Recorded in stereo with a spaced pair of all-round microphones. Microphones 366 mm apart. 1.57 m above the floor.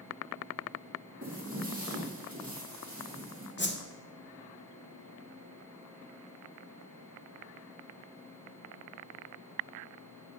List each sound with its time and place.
1.2 s footsteps: 20° right (ahead or behind), 2.5 m; by 3.5 s 25° right (ahead or behind), 3.5 m
3.6 s a whoosh: 30° left (ahead or behind), 0.8 m